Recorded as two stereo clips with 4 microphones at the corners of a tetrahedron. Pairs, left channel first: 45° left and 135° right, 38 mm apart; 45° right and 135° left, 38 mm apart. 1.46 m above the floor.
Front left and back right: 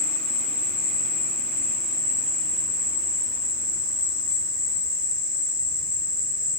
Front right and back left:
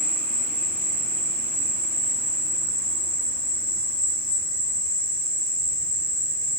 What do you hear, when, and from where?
0.0 s an insect: 65° right, 1.1 m